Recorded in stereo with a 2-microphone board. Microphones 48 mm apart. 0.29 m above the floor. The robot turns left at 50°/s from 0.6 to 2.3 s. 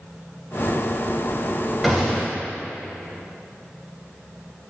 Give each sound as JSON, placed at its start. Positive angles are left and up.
{"t": 1.8, "sound": "a gunshot", "side_deg": -5, "distance_m": 0.6}